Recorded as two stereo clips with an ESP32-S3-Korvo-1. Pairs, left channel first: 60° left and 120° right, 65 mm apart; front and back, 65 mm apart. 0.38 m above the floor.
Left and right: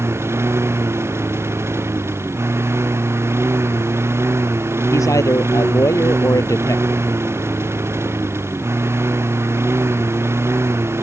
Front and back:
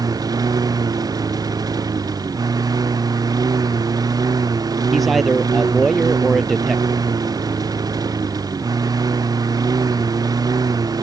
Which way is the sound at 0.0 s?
170° right.